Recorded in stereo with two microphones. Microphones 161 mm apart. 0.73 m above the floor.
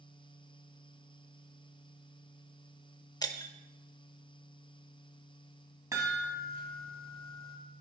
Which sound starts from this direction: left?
Breaking glass, at 3.2 s.